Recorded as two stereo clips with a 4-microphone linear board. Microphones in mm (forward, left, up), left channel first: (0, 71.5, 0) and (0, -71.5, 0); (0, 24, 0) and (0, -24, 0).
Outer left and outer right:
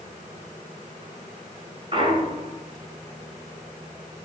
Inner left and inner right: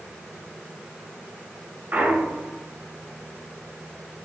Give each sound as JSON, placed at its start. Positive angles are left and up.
{"t": 1.9, "sound": "a clunk", "side_deg": -40, "distance_m": 1.5}